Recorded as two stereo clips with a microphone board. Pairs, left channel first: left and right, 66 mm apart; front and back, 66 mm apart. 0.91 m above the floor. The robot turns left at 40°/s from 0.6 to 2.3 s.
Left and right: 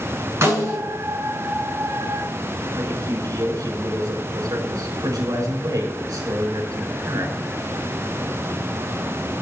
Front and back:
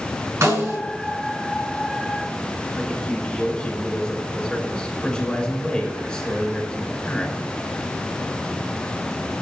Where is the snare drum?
140° right, 6 m; by 0.8 s 145° right, 6 m.